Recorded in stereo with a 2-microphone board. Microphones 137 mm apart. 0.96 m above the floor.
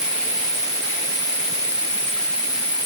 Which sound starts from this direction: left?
An insect, at 0.0 s.